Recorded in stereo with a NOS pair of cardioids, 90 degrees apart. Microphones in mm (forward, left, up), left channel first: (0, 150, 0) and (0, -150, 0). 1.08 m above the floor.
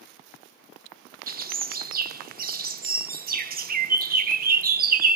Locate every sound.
1.3 s a bird: 30° right, 0.6 m